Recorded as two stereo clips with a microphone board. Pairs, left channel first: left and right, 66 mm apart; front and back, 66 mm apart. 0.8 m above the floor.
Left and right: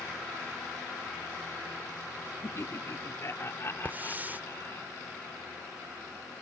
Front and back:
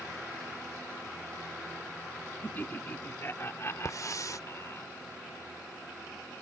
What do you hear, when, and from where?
2.4 s laughter: 55° left; by 4.8 s 40° left
3.9 s a hiss: 30° right